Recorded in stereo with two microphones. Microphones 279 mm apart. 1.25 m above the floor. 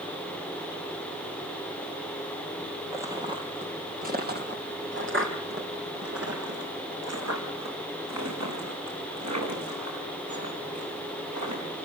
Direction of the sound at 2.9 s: 10° right (ahead or behind).